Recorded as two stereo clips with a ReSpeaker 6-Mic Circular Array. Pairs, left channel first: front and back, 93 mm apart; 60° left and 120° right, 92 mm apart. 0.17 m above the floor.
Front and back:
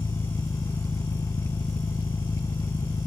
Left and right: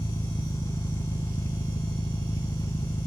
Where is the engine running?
35° left, 0.9 m.